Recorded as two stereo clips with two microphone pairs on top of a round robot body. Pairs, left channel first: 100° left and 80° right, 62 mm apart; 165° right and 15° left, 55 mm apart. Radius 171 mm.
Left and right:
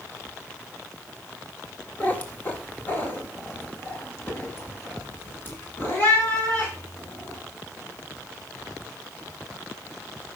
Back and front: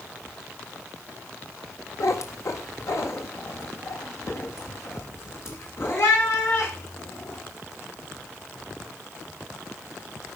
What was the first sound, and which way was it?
A cat meowing, 165° left.